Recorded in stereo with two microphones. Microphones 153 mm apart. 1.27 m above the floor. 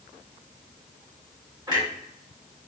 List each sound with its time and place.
1.7 s a clunk: 30° right (ahead or behind), 1.4 m